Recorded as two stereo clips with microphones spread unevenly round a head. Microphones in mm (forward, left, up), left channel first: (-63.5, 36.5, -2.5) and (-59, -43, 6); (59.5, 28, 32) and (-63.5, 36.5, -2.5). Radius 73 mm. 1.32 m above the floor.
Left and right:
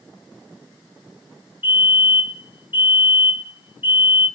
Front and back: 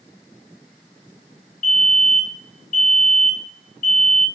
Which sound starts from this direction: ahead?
A fire alarm, at 1.6 s.